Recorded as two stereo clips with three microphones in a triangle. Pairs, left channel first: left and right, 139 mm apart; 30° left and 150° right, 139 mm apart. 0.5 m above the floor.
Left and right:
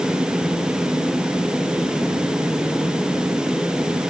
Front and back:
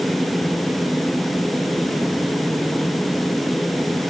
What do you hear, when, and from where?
Only background noise.